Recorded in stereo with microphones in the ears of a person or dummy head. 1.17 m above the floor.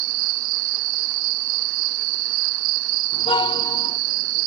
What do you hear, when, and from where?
0.0 s an insect: 45° right (ahead or behind)
3.1 s a car horn: 25° left (ahead or behind)